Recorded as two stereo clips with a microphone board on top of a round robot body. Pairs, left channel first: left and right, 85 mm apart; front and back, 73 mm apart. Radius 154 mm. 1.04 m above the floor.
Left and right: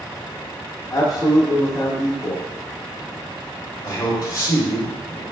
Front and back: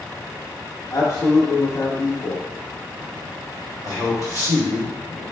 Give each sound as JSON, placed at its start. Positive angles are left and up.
{"t": 0.9, "sound": "a man speaking", "azimuth_deg": 45, "distance_m": 0.7}
{"t": 3.8, "sound": "a man speaking", "azimuth_deg": 135, "distance_m": 1.5}